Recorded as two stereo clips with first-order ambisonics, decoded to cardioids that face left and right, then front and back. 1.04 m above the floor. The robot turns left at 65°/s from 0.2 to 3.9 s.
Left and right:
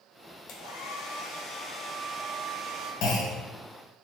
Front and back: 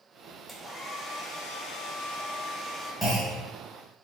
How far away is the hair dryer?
About 0.8 m.